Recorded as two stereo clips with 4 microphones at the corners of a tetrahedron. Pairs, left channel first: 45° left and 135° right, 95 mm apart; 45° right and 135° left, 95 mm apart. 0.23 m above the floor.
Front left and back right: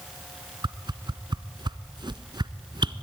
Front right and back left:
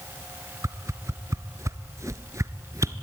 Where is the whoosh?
170° right, 0.8 m.